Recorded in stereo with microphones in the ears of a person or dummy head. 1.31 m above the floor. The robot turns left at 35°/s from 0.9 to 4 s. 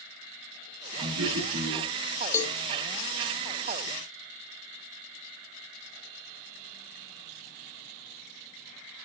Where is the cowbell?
15° left (ahead or behind), 0.8 m; by 2.6 s 5° left (ahead or behind), 0.8 m.